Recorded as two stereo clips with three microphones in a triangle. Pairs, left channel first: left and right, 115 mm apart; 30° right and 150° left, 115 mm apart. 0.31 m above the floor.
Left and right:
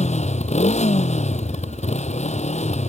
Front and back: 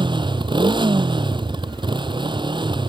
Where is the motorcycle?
105° left.